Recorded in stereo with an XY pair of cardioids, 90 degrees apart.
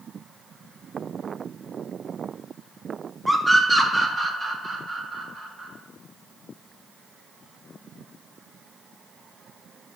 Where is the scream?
10° right, 2.5 m; by 5.7 s 60° right, 4.5 m.